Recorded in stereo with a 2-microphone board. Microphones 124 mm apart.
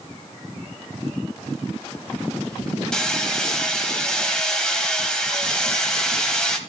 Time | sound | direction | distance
2.9 | hammering | 5° left (ahead or behind) | 1.5 m